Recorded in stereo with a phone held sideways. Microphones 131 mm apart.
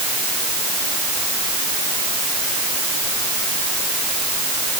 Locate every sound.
Only background noise.